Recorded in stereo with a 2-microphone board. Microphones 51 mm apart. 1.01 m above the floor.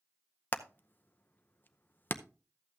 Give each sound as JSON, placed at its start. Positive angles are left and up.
{"t": 0.5, "sound": "hammering", "side_deg": 40, "distance_m": 0.6}